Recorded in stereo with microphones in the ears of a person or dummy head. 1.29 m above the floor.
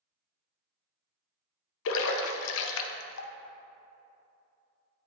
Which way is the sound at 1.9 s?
70° left (ahead or behind).